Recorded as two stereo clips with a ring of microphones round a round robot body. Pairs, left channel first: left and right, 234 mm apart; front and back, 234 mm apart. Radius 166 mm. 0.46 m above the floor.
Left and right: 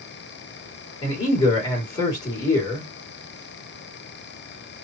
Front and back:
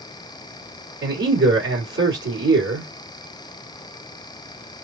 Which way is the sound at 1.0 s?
165° left.